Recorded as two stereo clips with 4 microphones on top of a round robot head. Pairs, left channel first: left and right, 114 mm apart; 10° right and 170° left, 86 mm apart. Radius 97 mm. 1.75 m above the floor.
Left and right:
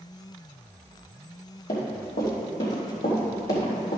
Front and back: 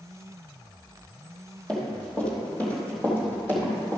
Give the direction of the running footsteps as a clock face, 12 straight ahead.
10 o'clock.